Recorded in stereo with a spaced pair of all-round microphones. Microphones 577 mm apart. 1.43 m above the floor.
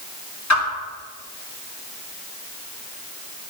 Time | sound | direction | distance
0.5 | a whoosh | 30° left (ahead or behind) | 1.7 m